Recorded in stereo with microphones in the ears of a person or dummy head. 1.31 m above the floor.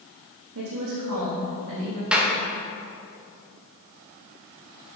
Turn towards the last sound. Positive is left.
turn(degrees=-5)  # may be behind; listen again after turning